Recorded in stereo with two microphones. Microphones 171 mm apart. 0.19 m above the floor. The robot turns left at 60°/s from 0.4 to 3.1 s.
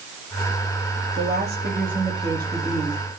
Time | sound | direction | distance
1.1 | a woman speaking | 80° right | 4.5 m